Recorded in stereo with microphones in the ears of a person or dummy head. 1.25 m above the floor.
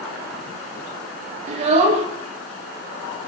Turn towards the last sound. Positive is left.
turn(degrees=-40)  # may be behind; listen again after turning